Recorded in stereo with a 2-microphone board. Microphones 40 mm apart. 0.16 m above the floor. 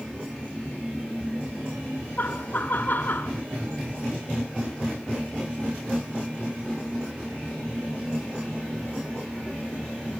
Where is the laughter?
50° left (ahead or behind), 1.9 m.